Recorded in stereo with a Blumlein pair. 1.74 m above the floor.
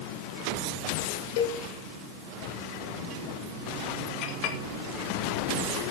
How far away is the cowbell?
About 2 m.